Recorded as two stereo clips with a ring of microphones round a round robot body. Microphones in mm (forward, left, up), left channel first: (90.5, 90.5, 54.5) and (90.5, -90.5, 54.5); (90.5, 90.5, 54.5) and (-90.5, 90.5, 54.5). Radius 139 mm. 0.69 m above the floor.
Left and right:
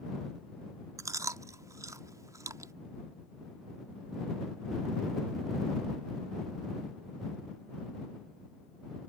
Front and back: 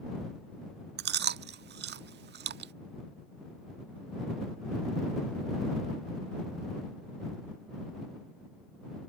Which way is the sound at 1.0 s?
165° right.